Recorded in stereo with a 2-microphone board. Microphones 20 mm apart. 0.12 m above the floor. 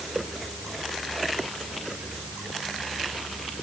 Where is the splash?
I don't hear a splash.